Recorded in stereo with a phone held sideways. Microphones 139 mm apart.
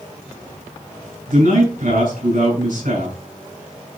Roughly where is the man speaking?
Right.